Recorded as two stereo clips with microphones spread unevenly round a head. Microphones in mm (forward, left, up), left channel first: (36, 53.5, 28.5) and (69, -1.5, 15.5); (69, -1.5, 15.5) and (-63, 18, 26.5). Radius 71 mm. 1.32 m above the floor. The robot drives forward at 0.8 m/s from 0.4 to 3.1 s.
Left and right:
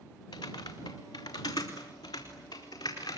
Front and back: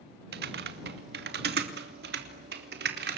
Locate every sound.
0.3 s typing on a keyboard: 170° left, 2 m; by 3.2 s 175° left, 4 m